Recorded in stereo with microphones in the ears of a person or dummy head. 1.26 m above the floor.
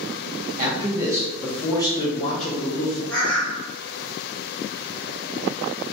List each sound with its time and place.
0.6 s a man speaking: 30° right (ahead or behind), 0.7 m; by 3.0 s 50° left (ahead or behind), 1.1 m
3.1 s a bird: 5° left (ahead or behind), 0.6 m